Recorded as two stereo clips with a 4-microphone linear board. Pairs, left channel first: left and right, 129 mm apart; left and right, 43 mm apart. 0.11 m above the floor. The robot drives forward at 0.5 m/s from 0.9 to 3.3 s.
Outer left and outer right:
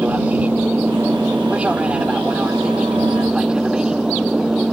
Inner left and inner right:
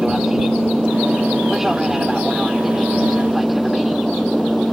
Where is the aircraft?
10° right (ahead or behind); by 4.7 s 5° right (ahead or behind).